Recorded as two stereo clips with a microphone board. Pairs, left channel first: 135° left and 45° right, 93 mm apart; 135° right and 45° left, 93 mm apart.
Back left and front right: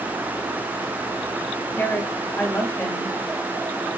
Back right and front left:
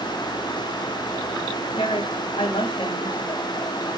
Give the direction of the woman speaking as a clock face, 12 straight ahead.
5 o'clock.